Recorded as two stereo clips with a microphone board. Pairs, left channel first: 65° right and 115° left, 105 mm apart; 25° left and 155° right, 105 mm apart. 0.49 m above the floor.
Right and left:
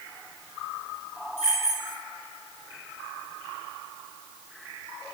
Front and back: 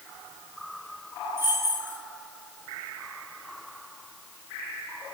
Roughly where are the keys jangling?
Right.